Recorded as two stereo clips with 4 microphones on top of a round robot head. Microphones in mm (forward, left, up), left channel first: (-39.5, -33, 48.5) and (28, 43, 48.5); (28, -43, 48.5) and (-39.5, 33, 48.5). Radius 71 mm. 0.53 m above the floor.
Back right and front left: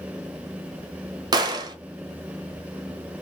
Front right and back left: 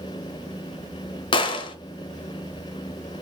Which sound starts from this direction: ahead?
A gunshot, at 1.3 s.